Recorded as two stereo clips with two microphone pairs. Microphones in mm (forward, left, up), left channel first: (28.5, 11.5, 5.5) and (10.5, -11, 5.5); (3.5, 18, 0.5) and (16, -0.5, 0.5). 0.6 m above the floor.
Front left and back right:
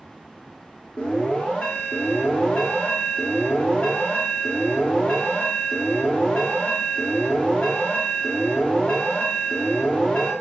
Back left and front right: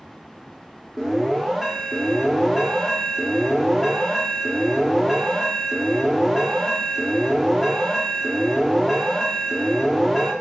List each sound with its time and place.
1.0 s an alarm: 45° left, 0.7 m